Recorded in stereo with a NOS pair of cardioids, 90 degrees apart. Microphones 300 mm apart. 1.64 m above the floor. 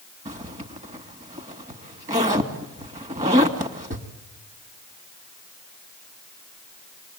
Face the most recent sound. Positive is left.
turn(degrees=-20)